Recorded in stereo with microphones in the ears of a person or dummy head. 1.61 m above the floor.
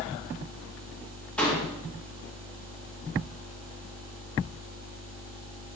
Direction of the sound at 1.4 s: 10° left (ahead or behind).